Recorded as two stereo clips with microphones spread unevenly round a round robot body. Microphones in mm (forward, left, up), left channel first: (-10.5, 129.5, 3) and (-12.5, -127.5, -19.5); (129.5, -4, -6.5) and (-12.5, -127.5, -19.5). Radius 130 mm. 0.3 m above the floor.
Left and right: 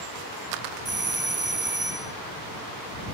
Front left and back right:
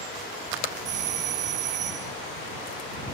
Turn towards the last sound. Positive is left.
turn(degrees=-175)